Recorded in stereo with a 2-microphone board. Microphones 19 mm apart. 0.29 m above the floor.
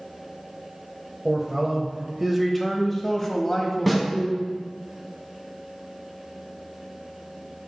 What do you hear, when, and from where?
1.2 s a man speaking: 30° right (ahead or behind), 1.1 m; by 4.5 s 40° left (ahead or behind), 1.6 m
3.9 s a snare drum: 5° left (ahead or behind), 2 m